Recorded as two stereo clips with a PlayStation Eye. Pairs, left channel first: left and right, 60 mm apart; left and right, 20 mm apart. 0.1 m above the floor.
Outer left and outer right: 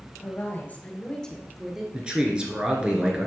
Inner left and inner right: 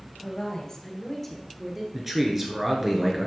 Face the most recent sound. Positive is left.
turn(degrees=-15)  # may be behind; listen again after turning